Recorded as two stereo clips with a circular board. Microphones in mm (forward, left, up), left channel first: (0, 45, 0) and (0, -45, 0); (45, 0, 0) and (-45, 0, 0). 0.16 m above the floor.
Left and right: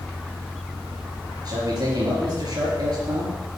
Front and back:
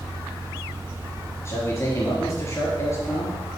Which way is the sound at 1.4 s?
55° right.